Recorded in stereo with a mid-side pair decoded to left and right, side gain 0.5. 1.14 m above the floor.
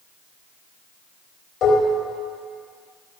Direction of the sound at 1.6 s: 60° left.